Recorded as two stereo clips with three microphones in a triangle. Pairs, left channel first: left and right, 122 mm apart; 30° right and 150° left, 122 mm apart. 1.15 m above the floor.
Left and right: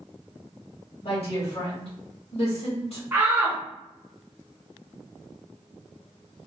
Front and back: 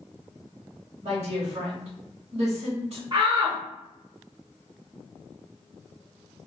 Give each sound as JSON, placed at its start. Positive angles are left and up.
{"t": 1.0, "sound": "a woman speaking", "azimuth_deg": 125, "distance_m": 1.3}
{"t": 3.1, "sound": "a shout", "azimuth_deg": -155, "distance_m": 0.7}